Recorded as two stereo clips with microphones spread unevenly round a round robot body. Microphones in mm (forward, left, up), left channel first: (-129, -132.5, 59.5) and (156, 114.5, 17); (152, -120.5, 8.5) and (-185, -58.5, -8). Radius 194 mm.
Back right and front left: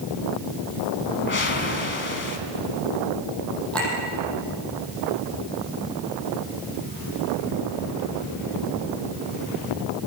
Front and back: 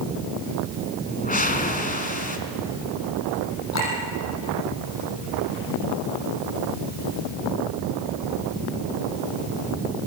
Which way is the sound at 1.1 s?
75° right.